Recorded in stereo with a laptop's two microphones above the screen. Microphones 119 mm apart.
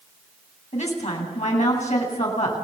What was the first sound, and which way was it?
A woman speaking, 70° left (ahead or behind).